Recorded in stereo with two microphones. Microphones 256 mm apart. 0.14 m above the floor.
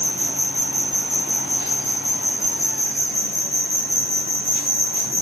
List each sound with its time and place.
0.0 s an insect: 50° left (ahead or behind), 3.5 m